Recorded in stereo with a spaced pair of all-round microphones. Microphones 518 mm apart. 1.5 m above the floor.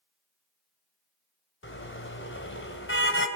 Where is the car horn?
20° left (ahead or behind), 3.5 m.